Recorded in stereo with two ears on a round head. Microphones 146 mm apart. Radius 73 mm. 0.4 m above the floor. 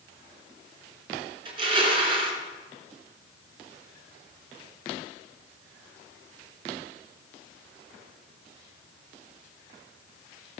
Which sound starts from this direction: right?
Crushing, at 1.4 s.